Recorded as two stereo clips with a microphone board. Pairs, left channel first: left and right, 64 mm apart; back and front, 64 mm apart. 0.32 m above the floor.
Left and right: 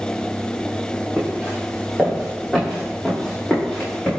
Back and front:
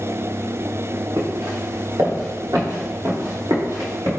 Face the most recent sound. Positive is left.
turn(degrees=10)